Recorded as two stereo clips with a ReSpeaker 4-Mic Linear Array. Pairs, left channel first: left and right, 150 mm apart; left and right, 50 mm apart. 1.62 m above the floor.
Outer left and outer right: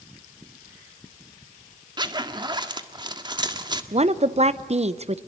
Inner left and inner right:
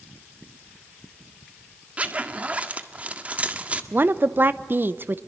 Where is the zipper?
30° right (ahead or behind), 1.5 m.